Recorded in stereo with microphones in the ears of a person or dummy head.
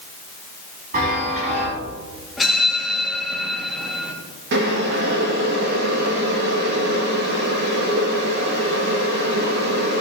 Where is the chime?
40° right (ahead or behind), 4.5 m.